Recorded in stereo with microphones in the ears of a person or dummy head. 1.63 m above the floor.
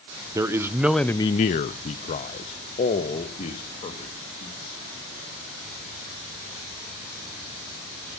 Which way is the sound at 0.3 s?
15° right (ahead or behind).